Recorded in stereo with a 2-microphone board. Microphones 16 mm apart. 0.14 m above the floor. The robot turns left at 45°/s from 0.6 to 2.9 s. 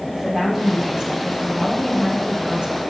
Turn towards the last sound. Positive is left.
turn(degrees=-125)